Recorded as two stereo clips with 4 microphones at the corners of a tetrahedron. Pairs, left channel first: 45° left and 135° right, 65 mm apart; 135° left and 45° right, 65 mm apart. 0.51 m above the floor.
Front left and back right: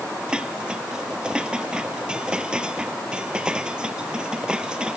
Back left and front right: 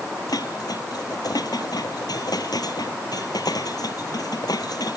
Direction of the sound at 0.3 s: 150° left.